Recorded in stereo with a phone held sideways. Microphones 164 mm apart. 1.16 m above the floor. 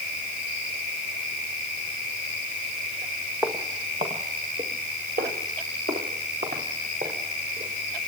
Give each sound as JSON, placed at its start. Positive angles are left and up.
{"t": 3.4, "sound": "footsteps", "side_deg": -15, "distance_m": 2.0}